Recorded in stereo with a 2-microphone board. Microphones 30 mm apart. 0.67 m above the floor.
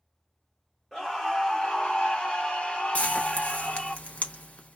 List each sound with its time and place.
0.9 s a scream: 5° left (ahead or behind), 1.1 m; by 4.0 s 50° left (ahead or behind), 1.4 m
3.0 s frying: 50° left (ahead or behind), 0.8 m